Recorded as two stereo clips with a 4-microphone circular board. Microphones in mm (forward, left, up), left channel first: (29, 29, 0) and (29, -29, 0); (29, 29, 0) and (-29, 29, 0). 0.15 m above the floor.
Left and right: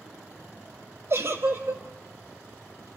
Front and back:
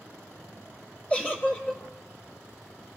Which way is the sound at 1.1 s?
60° right.